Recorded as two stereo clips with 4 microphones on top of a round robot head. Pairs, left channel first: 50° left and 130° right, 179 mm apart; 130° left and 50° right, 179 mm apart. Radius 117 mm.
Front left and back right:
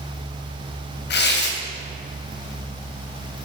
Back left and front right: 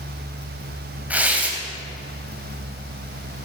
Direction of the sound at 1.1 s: 30° left.